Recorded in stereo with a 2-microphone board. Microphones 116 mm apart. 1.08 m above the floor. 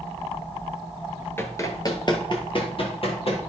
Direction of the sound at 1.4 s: 20° left (ahead or behind).